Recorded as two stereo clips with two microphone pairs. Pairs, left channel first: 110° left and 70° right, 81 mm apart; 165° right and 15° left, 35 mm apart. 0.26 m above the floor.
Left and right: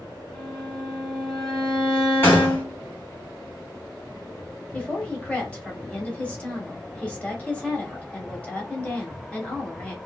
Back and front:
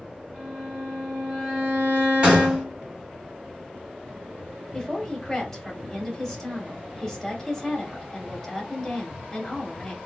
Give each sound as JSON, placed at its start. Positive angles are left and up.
{"t": 0.3, "sound": "a violin", "azimuth_deg": 30, "distance_m": 2.0}
{"t": 2.2, "sound": "a gunshot", "azimuth_deg": 60, "distance_m": 1.9}
{"t": 4.7, "sound": "a woman speaking", "azimuth_deg": 150, "distance_m": 0.9}